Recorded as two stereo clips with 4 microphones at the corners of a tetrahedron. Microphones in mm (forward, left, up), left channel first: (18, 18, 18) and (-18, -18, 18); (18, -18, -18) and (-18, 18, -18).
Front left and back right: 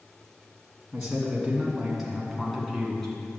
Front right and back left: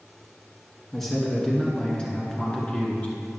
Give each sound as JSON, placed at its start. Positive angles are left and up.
{"t": 0.9, "sound": "a man speaking", "azimuth_deg": -115, "distance_m": 1.5}